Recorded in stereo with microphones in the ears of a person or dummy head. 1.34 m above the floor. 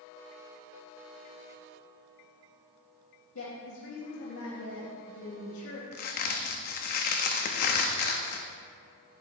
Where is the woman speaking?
65° left (ahead or behind), 2.5 m.